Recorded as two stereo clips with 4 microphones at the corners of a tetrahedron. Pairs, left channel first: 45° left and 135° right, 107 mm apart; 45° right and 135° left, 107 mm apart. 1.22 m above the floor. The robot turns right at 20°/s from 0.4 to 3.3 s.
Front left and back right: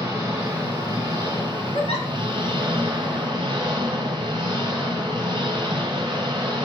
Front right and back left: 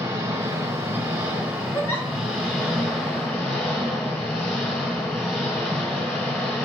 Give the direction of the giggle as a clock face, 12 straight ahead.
11 o'clock.